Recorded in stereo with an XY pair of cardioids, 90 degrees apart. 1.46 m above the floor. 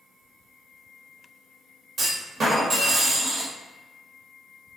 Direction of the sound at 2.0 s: 55° right.